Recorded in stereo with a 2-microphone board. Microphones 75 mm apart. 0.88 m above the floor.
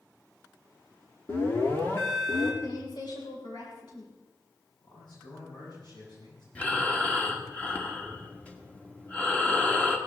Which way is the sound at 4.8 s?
70° left (ahead or behind).